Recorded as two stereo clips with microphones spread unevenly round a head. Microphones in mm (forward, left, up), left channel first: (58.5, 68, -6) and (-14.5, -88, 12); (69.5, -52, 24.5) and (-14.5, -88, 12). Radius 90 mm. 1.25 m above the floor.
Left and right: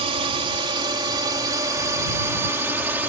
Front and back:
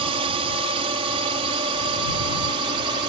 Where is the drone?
175° right; by 3.1 s 165° left.